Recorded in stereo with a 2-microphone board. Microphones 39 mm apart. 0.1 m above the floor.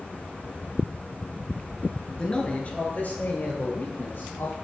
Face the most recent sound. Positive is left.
turn(degrees=55)  # may be behind; listen again after turning